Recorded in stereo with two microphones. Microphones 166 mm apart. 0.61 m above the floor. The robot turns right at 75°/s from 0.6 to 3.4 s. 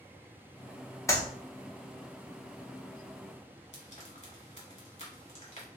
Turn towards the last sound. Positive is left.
turn(degrees=40)  # may be behind; listen again after turning